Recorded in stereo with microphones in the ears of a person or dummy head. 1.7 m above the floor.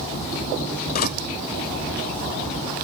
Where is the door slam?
50° left (ahead or behind).